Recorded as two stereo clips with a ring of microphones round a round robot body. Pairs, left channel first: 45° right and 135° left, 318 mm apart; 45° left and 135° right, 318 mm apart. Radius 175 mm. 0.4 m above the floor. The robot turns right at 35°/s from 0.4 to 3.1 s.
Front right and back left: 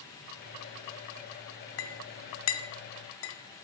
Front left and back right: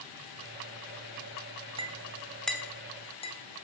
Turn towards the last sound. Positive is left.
turn(degrees=-20)